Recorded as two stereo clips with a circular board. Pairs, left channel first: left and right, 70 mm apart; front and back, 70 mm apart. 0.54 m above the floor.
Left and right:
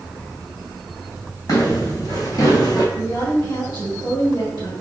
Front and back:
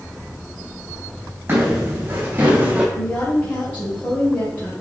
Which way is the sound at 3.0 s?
65° left.